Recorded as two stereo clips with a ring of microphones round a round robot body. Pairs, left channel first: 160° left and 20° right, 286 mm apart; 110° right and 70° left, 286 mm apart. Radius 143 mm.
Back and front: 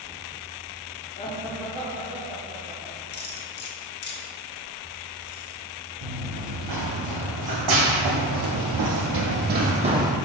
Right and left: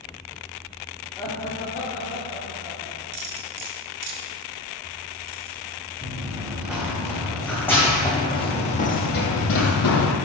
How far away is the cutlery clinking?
About 1.0 m.